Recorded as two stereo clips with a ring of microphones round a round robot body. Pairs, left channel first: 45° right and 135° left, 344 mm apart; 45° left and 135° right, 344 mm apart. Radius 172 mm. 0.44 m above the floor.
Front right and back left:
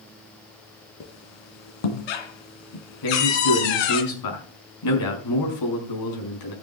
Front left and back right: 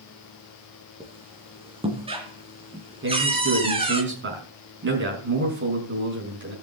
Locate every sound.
1.0 s a squeak: 60° right, 2.5 m
3.0 s a man speaking: 75° right, 5.5 m